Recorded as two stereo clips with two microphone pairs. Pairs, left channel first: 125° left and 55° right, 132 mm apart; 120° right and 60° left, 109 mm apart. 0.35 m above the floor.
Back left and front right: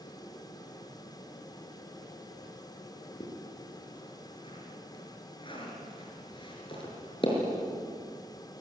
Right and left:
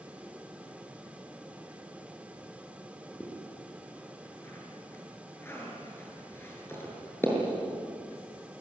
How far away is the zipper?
About 6.5 m.